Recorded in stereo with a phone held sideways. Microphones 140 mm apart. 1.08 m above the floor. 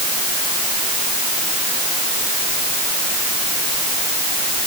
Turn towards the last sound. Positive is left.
No sound to turn to.